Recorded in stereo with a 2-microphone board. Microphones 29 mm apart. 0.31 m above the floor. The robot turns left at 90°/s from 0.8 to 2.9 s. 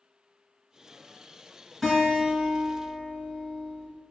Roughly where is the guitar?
Ahead.